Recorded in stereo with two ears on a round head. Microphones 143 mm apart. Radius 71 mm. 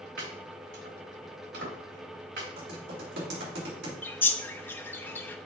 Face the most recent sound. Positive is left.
turn(degrees=15)  # may be behind; listen again after turning